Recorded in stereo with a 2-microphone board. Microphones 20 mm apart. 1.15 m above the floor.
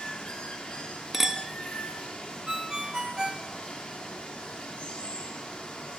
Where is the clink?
20° right (ahead or behind), 0.5 m.